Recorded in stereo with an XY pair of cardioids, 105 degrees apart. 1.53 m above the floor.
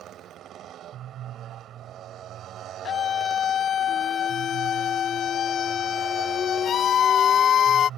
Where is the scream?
60° left.